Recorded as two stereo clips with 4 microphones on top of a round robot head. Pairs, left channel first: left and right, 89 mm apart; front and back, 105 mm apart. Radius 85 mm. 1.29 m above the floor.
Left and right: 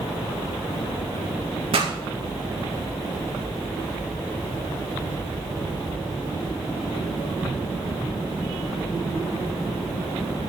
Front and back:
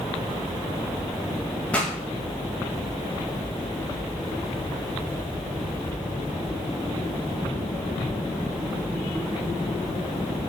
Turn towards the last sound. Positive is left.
turn(degrees=-80)